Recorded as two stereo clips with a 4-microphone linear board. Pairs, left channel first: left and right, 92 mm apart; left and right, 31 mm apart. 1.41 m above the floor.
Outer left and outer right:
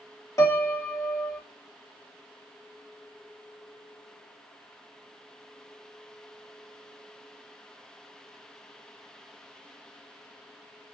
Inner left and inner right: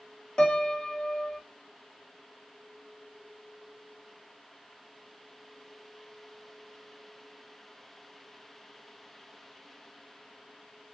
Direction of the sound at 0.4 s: 30° left (ahead or behind).